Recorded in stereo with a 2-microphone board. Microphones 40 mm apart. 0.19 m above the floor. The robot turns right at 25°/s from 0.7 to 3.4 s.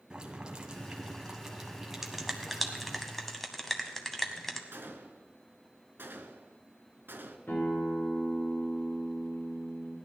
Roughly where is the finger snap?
Centre.